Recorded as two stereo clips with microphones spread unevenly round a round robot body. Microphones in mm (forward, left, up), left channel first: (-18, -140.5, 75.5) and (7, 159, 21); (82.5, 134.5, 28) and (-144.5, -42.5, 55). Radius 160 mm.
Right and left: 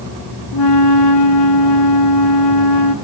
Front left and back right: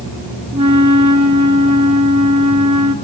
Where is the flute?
70° right, 1.7 m.